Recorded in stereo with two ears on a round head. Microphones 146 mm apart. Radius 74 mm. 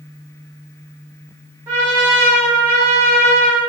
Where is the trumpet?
15° right (ahead or behind), 1.3 m.